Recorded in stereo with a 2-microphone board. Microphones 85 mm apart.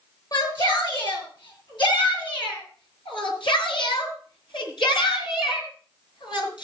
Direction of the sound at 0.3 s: 65° left (ahead or behind).